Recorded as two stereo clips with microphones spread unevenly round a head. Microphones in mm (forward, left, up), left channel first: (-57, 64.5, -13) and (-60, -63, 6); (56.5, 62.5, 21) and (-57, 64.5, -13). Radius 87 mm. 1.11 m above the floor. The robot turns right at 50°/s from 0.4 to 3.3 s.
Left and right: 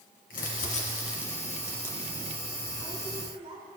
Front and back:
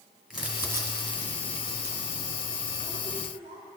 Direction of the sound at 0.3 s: 85° left.